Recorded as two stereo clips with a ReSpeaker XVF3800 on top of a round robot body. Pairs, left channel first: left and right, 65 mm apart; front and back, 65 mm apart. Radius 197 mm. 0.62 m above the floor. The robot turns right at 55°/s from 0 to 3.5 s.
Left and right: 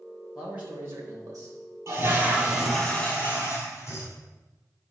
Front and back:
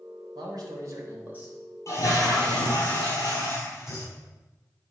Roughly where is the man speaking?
Behind.